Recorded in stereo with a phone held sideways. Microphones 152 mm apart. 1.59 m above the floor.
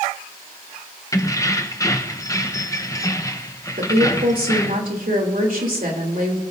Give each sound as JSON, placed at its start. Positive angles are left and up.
{"t": 1.1, "sound": "keys jangling", "side_deg": 20, "distance_m": 0.8}
{"t": 3.8, "sound": "a woman speaking", "side_deg": -70, "distance_m": 3.0}